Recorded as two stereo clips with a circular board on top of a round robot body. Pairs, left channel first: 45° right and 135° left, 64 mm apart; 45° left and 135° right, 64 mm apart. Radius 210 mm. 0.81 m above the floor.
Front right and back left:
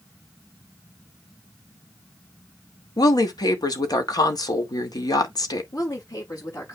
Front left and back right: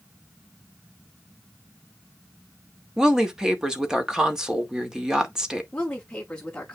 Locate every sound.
3.0 s a woman speaking: 55° right, 2.5 m
5.7 s a woman speaking: 40° right, 5.5 m